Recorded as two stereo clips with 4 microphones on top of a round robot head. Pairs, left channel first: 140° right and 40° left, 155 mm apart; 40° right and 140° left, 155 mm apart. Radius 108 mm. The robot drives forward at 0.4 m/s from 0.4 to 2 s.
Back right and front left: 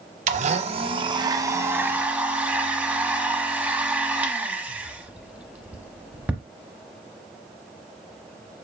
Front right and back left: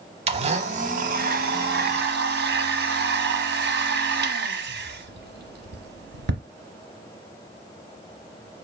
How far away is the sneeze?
I don't hear a sneeze.